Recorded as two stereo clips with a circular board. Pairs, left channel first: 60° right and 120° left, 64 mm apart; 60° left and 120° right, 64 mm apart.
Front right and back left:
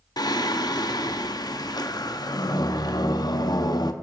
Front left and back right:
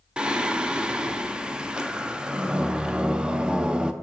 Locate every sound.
0.2 s singing: 45° right, 0.5 m